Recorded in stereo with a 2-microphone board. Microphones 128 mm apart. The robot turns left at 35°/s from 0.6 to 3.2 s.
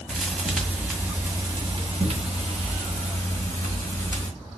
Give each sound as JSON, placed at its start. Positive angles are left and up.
{"t": 0.1, "sound": "a thud", "azimuth_deg": -5, "distance_m": 1.8}